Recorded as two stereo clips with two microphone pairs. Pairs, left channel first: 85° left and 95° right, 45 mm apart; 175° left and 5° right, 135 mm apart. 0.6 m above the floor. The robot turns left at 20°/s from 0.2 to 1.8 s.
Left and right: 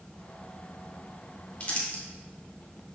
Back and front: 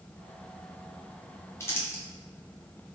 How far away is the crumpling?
About 1.0 m.